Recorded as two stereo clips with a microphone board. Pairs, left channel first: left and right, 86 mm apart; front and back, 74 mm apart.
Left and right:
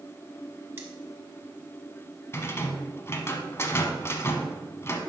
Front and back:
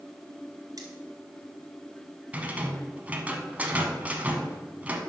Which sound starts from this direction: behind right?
Cutlery clinking, at 0.8 s.